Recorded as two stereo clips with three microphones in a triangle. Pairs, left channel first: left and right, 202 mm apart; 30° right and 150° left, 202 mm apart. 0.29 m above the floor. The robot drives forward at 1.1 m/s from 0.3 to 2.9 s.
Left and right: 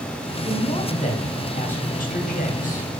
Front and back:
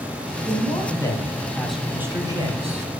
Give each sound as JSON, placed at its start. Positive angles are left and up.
{"t": 0.5, "sound": "a man speaking", "azimuth_deg": 30, "distance_m": 3.0}